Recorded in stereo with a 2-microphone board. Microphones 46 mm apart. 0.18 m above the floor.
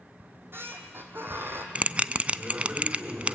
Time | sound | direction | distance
0.2 | a squeak | 50° right (ahead or behind) | 2.5 m
1.8 | a bell | 30° right (ahead or behind) | 0.5 m